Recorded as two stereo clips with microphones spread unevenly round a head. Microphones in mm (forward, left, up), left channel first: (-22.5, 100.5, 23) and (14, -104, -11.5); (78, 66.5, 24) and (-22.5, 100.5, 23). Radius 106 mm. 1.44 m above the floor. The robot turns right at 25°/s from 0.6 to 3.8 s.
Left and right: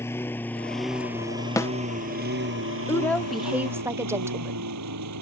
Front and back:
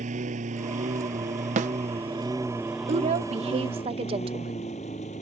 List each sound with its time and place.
0.0 s a lawn mower: straight behind; by 5.2 s 75° right
1.6 s a snare drum: 175° left; by 1.7 s straight behind
2.9 s a woman speaking: 175° right; by 4.7 s 155° right